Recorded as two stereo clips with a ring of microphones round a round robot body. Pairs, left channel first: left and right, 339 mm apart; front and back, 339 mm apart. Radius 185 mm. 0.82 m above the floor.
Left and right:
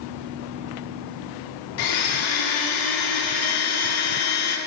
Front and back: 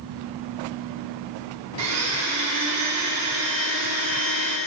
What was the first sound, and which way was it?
A blender, 125° left.